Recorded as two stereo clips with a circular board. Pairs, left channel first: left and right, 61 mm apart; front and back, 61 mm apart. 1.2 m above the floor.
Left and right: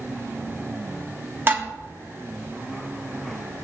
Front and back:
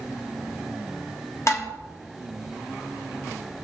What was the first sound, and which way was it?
Dishes clattering, 35° right.